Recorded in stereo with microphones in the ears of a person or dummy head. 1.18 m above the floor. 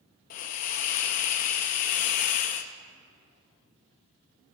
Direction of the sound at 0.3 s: 40° left (ahead or behind).